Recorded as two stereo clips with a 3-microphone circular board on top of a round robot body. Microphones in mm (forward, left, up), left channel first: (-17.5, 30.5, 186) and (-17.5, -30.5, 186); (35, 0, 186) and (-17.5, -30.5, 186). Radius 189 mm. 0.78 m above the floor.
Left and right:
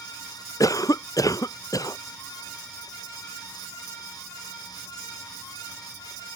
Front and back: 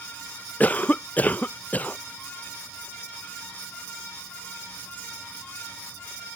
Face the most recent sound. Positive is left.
turn(degrees=95)